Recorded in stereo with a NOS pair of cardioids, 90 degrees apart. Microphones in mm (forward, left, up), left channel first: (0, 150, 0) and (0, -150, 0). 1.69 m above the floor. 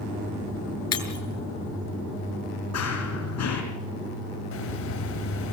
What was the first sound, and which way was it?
Breaking glass, 60° left.